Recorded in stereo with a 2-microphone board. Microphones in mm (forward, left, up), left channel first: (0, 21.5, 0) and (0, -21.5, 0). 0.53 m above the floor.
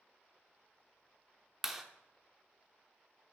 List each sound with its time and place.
1.6 s a clap: 5° right (ahead or behind), 0.8 m